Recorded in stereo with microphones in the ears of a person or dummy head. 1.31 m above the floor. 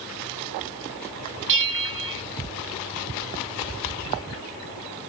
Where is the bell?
65° right (ahead or behind), 1.2 m.